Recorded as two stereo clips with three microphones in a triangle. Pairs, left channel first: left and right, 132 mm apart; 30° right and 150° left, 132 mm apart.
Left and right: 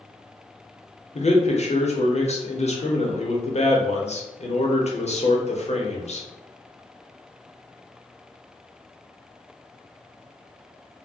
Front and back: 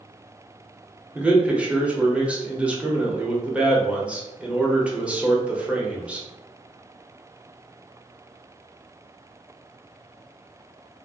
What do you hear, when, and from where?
1.1 s a man speaking: 70° left, 0.7 m